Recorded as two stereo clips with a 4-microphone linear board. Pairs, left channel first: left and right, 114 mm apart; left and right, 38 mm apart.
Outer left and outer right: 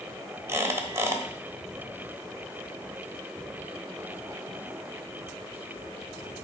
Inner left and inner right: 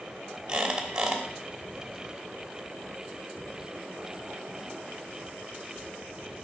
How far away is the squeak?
About 1.0 m.